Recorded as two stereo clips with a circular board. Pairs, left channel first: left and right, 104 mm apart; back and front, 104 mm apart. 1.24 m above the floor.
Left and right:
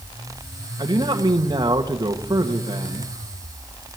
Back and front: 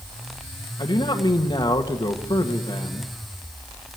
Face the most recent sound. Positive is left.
turn(degrees=-140)